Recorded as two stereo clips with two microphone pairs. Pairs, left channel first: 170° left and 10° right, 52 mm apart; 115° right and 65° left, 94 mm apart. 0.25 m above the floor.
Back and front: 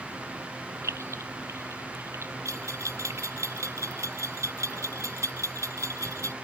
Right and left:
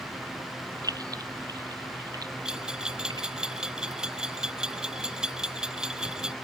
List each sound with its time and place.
0.8 s keys jangling: 15° left; by 3.5 s 25° left
2.5 s a bell: 15° right